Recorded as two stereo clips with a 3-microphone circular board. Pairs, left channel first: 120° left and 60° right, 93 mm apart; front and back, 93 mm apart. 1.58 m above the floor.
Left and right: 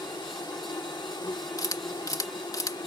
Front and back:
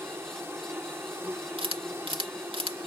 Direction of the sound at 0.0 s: 125° left.